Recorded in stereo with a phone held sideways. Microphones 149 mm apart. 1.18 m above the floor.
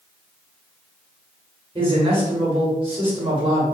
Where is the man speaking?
35° right (ahead or behind), 1.3 m.